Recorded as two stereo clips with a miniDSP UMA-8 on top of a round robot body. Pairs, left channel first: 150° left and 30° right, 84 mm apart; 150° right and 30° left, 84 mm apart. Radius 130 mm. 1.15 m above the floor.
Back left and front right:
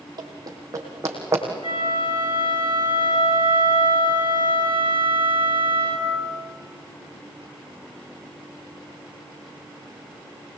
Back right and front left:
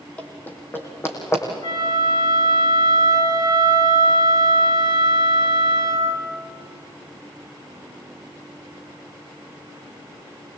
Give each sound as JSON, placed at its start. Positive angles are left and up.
{"t": 0.2, "sound": "running footsteps", "azimuth_deg": -75, "distance_m": 3.0}
{"t": 1.6, "sound": "a flute", "azimuth_deg": 170, "distance_m": 8.0}